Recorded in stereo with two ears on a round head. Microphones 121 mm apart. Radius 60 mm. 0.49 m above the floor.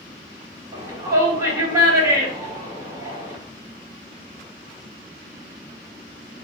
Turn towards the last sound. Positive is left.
turn(degrees=-25)  # may be behind; listen again after turning